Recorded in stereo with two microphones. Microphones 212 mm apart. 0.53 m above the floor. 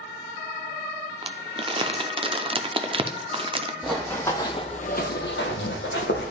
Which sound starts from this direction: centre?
Running footsteps, at 3.8 s.